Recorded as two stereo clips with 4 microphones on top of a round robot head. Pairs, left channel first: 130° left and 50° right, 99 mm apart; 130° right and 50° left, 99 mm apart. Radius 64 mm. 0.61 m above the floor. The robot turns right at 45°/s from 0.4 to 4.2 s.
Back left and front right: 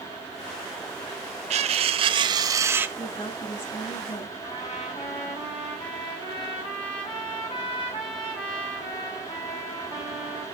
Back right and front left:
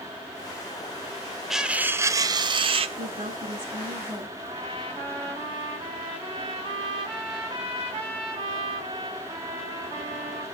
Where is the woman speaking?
65° left, 6.5 m; by 4.3 s 120° left, 6.5 m.